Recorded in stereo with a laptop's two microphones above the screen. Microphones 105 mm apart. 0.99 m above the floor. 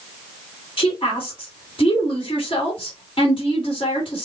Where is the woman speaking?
50° left (ahead or behind), 2 m.